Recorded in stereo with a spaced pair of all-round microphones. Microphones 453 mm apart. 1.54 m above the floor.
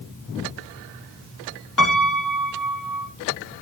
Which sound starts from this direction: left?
A piano, at 1.8 s.